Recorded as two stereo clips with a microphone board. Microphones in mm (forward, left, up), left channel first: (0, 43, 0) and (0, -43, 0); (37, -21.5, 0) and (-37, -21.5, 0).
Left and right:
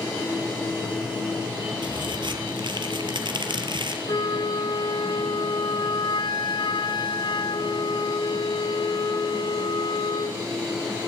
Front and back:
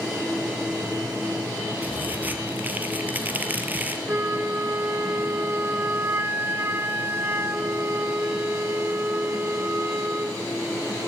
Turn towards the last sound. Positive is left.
turn(degrees=120)